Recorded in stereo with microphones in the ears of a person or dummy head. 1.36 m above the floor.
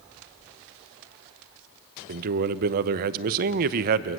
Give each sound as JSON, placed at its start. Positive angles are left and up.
{"t": 2.1, "sound": "a man speaking", "side_deg": -55, "distance_m": 0.8}